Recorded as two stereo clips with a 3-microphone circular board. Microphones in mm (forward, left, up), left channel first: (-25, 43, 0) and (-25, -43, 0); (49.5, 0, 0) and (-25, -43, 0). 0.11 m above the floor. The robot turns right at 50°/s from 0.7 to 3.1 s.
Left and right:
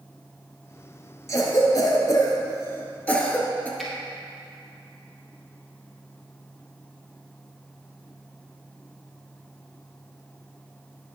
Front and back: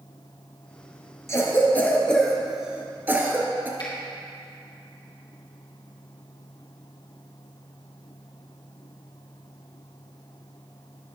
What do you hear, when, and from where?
1.3 s a cough: 65° left, 1.3 m; by 3.7 s 155° left, 1.3 m
3.8 s a finger snap: straight ahead, 2.5 m